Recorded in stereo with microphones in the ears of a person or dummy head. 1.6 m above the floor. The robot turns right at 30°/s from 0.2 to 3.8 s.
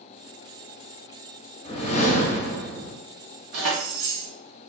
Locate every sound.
1.6 s a whoosh: 25° left, 0.6 m; by 3.0 s 65° left, 0.6 m
3.5 s keys jangling: 55° right (ahead or behind), 0.9 m; by 4.3 s 60° right (ahead or behind), 0.9 m